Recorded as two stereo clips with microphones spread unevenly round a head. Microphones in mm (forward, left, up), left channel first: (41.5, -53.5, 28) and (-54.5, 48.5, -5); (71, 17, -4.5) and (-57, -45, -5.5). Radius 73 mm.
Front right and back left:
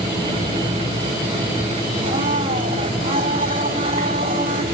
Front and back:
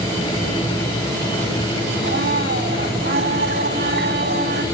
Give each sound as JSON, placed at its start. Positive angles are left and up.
{"t": 2.0, "sound": "a blender", "azimuth_deg": -175, "distance_m": 2.0}